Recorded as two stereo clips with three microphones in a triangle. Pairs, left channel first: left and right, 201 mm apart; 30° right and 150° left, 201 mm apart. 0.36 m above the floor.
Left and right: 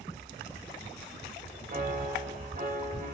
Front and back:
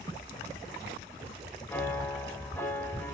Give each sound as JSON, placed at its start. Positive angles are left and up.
{"t": 1.7, "sound": "a piano", "azimuth_deg": -105, "distance_m": 1.0}